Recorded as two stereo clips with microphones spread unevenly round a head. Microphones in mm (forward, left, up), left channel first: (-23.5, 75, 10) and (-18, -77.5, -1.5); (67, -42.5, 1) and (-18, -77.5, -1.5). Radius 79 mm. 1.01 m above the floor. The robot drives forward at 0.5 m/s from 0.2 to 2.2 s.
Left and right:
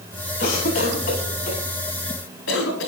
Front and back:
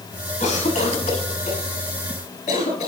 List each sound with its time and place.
0.4 s a cough: 70° left, 6.5 m; by 2.9 s 75° left, 6.5 m